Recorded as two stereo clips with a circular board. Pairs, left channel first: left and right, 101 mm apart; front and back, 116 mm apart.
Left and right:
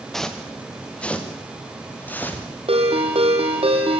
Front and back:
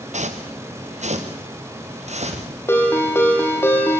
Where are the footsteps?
175° left, 2.5 m; by 2.5 s 160° left, 5 m.